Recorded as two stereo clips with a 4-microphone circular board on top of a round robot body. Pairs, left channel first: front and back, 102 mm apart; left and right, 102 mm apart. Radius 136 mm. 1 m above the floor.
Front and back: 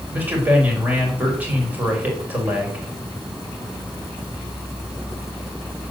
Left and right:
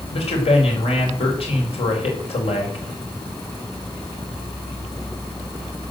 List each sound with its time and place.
0.1 s a man speaking: 105° left, 5 m